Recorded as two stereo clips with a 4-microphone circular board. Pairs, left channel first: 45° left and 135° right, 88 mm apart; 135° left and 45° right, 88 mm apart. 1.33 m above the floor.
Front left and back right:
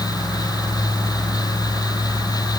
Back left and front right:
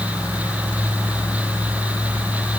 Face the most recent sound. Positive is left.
No sound to turn to.